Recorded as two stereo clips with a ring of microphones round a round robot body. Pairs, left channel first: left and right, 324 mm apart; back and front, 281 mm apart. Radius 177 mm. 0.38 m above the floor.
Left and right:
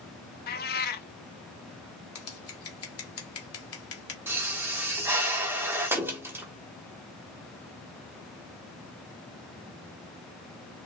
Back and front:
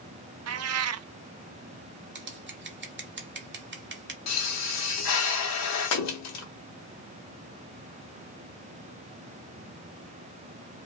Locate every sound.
0.5 s a cat meowing: 30° left, 0.6 m
2.1 s scissors: 50° left, 1.3 m
4.3 s a pop: 170° right, 1.2 m